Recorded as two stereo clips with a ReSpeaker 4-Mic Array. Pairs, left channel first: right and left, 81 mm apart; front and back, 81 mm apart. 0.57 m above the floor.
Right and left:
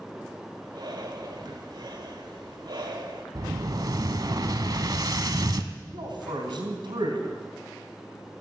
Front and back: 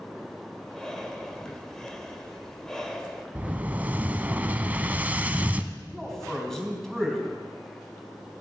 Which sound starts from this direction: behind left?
An explosion, at 3.4 s.